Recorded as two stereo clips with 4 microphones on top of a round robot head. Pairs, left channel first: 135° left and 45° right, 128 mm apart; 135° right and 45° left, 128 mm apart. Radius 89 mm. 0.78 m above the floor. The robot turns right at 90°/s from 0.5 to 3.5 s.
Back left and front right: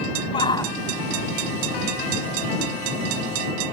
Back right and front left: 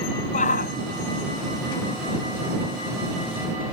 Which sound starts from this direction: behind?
A shout, at 0.3 s.